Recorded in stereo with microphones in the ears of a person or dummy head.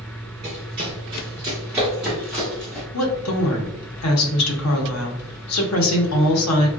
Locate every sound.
0.4 s running footsteps: 30° right (ahead or behind), 1.3 m; by 2.8 s 10° left (ahead or behind), 1.8 m
2.9 s a woman speaking: 85° left, 0.8 m